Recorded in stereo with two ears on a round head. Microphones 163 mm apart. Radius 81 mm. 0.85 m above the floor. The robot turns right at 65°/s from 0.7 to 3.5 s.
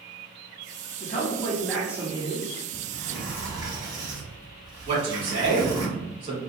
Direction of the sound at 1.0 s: 130° left.